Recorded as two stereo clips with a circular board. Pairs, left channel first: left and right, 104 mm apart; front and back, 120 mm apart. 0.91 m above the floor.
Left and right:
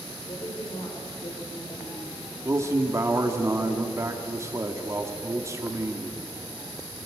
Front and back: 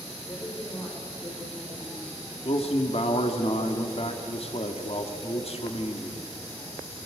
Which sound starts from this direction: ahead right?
A man speaking, at 2.5 s.